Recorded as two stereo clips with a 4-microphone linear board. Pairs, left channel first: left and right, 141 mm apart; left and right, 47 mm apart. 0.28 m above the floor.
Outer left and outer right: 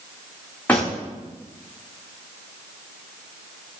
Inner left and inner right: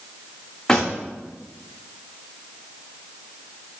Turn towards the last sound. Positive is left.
turn(degrees=10)  # may be behind; listen again after turning